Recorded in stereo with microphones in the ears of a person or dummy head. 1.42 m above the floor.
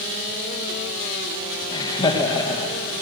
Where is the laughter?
25° left (ahead or behind), 1.5 m.